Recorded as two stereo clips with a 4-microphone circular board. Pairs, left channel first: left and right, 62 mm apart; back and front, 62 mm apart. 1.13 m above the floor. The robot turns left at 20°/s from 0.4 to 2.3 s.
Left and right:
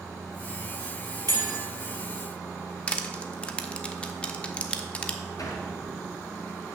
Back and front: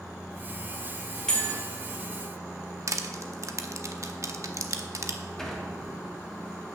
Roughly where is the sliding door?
Left.